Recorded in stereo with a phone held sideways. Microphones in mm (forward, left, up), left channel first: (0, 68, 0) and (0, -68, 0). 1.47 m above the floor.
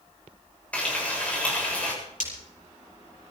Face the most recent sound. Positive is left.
turn(degrees=75)  # may be behind; listen again after turning